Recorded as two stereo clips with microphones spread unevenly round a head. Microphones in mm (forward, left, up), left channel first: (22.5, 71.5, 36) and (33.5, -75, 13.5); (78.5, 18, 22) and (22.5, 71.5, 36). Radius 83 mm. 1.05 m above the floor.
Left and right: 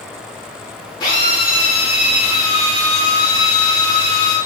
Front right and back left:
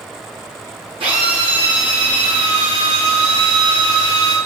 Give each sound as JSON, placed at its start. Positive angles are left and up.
{"t": 1.0, "sound": "a drill", "azimuth_deg": 160, "distance_m": 6.5}